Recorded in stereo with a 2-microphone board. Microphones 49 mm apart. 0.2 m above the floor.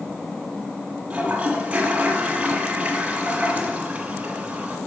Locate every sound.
1.1 s a toilet flushing: 30° right (ahead or behind), 1.3 m